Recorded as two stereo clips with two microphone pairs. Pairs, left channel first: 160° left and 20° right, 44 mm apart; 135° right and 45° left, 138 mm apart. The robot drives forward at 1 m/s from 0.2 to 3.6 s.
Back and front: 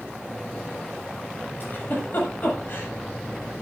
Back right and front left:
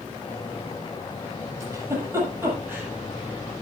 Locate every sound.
1.6 s a giggle: 110° left, 8 m; by 2.9 s 120° left, 8.5 m